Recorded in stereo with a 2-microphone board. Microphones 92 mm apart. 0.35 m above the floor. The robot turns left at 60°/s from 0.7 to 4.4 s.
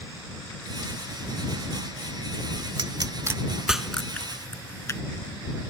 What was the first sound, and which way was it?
A pop, 60° right (ahead or behind).